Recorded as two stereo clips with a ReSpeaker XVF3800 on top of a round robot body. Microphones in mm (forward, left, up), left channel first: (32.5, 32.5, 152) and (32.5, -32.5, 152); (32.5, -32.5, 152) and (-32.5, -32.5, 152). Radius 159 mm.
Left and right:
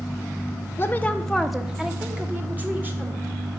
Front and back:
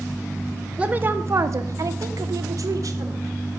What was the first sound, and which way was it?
A woman speaking, 115° left.